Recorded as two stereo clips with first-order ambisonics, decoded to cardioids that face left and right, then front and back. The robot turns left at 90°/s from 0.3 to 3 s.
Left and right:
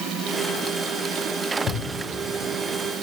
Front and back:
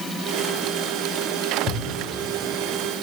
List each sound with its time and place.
1.7 s a thud: 50° left, 5.5 m; by 3.0 s 70° right, 5.5 m